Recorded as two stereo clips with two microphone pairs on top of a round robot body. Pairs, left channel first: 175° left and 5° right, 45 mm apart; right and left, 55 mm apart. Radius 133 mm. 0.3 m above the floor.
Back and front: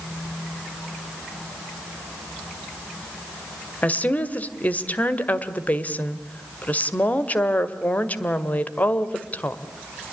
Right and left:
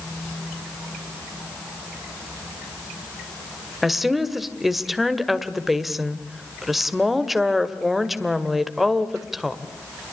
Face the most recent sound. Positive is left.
turn(degrees=175)